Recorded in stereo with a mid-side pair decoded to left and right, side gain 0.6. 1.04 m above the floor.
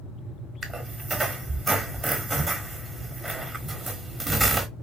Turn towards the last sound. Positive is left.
turn(degrees=-15)